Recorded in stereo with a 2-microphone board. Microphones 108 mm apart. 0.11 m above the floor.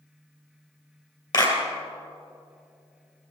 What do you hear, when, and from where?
1.3 s a clap: 40° left (ahead or behind), 2.5 m